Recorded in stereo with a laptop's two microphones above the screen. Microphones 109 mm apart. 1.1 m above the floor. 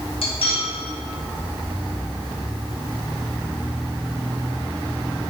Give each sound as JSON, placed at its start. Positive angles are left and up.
{"t": 0.2, "sound": "cutlery clinking", "side_deg": 65, "distance_m": 0.9}